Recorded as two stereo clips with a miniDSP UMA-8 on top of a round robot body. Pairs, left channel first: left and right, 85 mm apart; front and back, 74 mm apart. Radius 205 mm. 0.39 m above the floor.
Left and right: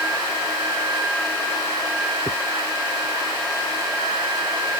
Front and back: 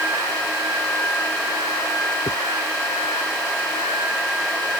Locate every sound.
2.3 s a dropped coin: 30° right